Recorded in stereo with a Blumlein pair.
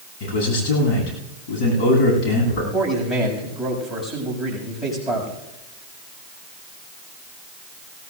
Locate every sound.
0.2 s a man speaking: 40° left, 9.5 m
2.7 s a man speaking: 10° left, 7.5 m